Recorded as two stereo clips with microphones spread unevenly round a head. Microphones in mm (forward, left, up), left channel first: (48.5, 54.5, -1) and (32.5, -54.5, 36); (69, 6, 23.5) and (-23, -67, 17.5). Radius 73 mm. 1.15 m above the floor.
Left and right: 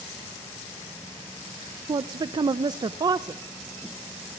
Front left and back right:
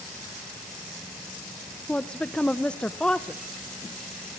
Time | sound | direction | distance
1.9 | a woman speaking | 45° right | 0.5 m